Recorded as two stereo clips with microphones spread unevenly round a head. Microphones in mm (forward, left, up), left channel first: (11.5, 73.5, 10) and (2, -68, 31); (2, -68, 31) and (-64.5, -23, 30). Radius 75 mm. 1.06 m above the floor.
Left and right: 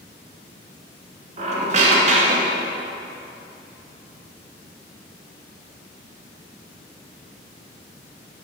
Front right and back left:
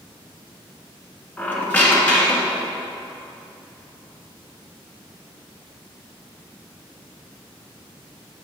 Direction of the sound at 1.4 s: 90° right.